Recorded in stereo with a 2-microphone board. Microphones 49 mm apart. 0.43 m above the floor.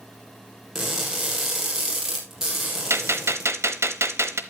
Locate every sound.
0.8 s crushing: 10° right (ahead or behind), 4.5 m
2.9 s a gunshot: 65° right (ahead or behind), 1.0 m